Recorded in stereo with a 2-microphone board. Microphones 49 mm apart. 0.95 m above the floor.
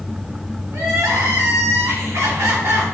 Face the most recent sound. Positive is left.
turn(degrees=-75)  # may be behind; listen again after turning